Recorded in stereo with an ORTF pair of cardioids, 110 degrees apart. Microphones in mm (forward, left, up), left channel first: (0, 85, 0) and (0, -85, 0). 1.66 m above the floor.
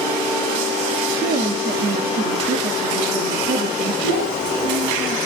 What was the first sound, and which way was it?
A woman speaking, 55° right.